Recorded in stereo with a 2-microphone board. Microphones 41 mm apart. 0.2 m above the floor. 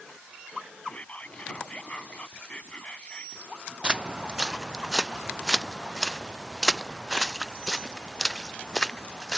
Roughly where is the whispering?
Left.